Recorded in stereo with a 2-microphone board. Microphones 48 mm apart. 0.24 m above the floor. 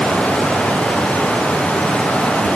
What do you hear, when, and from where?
Only background noise.